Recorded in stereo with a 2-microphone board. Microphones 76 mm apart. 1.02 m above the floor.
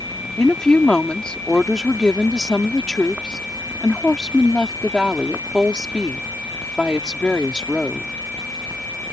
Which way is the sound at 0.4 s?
10° left (ahead or behind).